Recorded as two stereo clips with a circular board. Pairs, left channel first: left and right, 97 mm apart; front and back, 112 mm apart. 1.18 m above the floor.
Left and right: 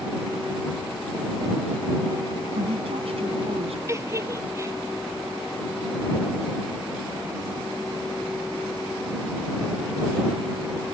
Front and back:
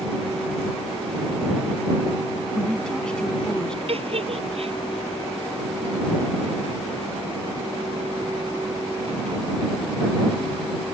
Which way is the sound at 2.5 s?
85° right.